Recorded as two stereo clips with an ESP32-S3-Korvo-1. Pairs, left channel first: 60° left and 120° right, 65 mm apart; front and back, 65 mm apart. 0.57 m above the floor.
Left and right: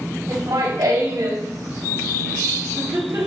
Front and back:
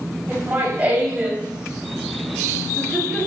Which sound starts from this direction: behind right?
Laughter, at 0.3 s.